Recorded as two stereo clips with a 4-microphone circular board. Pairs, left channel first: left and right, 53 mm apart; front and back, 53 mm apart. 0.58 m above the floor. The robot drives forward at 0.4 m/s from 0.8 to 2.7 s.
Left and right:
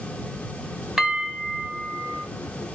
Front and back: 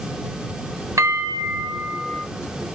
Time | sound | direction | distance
1.0 | a bell | 175° right | 0.7 m